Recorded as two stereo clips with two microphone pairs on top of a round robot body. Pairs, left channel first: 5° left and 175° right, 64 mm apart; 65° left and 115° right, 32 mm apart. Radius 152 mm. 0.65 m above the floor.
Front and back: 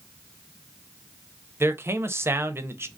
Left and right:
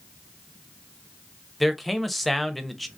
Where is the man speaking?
170° left, 0.9 m.